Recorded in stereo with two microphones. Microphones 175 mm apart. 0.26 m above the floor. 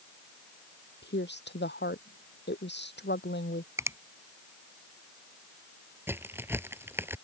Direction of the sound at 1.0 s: 80° left.